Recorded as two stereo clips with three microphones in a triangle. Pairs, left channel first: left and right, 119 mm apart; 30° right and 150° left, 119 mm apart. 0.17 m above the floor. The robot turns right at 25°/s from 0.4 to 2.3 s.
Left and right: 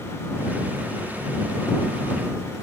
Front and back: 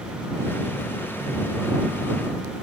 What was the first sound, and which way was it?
Only background noise.